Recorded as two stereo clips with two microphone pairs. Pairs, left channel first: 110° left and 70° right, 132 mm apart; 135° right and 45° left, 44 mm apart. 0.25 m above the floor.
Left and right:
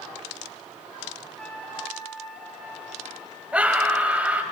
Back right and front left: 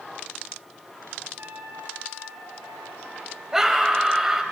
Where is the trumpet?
30° left, 2.5 m.